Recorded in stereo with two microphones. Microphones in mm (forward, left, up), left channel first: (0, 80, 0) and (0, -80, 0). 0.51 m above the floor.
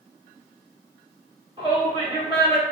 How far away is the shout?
About 1.5 m.